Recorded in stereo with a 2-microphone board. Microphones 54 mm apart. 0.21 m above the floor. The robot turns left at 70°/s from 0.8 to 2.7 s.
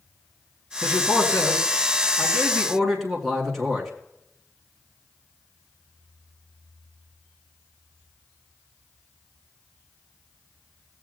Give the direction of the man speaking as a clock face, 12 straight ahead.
7 o'clock.